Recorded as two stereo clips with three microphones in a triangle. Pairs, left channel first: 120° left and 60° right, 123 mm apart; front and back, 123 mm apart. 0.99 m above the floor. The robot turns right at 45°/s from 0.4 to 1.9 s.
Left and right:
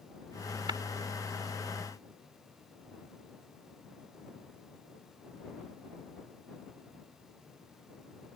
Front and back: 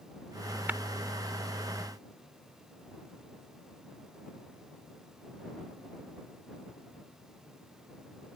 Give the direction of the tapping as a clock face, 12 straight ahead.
4 o'clock.